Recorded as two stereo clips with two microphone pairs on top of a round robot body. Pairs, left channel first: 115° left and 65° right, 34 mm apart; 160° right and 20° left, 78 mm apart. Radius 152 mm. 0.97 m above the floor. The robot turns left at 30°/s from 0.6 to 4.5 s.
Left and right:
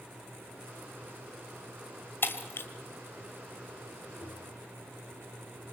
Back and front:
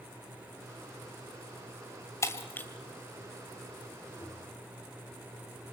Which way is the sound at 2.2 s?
145° left.